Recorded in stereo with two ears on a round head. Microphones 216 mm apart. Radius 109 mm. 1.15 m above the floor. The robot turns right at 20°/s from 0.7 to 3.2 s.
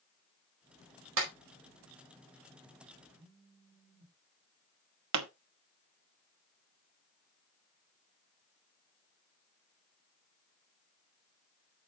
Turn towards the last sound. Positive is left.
turn(degrees=-75)  # may be behind; listen again after turning